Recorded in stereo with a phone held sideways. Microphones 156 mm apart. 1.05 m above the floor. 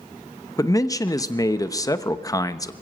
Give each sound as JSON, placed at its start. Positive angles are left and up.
{"t": 0.6, "sound": "a man speaking", "side_deg": 25, "distance_m": 0.9}